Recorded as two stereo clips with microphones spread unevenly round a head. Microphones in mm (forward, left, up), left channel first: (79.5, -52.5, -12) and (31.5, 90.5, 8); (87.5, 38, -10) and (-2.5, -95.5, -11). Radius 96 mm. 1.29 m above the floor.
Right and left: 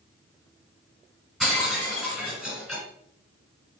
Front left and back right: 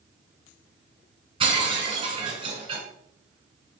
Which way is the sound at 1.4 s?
170° right.